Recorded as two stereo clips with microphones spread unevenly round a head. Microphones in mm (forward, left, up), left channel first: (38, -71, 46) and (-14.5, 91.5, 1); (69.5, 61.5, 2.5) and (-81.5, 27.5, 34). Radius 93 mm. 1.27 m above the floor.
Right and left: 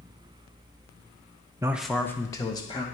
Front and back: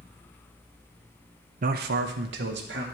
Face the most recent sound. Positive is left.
turn(degrees=-140)